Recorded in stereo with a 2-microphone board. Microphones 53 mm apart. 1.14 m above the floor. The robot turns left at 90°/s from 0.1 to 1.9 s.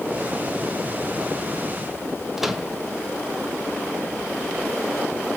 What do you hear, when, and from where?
2.4 s a microwave: 5° right (ahead or behind), 0.8 m